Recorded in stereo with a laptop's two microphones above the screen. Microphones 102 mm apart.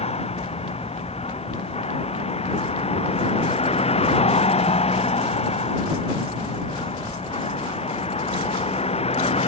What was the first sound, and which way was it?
A vehicle, 90° left.